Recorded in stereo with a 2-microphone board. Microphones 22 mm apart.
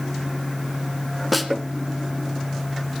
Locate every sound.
1.3 s a snare drum: 5° right (ahead or behind), 1.0 m